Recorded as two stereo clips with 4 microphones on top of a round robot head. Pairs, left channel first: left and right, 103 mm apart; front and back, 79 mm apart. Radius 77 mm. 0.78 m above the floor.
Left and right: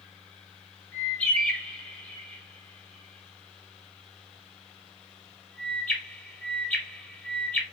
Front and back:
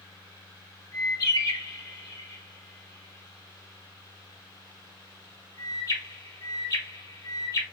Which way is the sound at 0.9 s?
15° left.